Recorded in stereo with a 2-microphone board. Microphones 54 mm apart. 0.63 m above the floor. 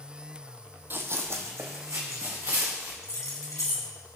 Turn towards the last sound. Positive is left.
turn(degrees=80)